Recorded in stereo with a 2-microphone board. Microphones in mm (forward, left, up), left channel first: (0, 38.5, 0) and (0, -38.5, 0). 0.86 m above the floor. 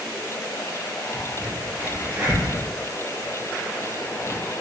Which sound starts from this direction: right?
A crack, at 1.1 s.